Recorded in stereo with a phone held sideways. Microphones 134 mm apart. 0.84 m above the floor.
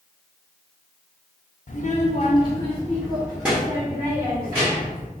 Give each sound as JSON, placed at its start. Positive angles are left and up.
{"t": 1.7, "sound": "a child speaking", "side_deg": 60, "distance_m": 0.7}